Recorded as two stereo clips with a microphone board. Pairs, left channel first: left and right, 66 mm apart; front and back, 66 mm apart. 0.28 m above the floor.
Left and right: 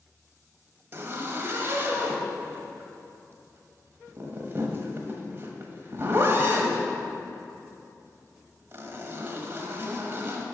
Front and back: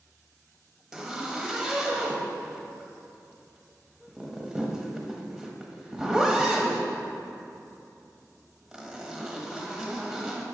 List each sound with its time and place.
0.9 s a zipper: 105° right, 1.1 m